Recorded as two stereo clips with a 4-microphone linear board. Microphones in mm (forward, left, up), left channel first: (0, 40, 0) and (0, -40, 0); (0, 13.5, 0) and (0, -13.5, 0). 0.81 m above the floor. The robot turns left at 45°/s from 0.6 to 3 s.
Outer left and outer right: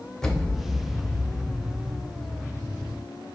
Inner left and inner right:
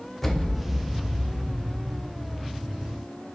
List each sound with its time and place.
0.2 s an explosion: 170° left, 0.7 m; by 2.1 s 105° left, 0.7 m